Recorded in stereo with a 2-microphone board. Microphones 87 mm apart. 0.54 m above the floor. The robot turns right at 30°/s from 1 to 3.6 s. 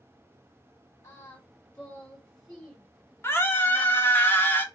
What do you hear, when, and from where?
1.0 s singing: 30° left (ahead or behind), 1.6 m; by 4.2 s 15° right (ahead or behind), 1.6 m
3.2 s a scream: 25° left (ahead or behind), 0.7 m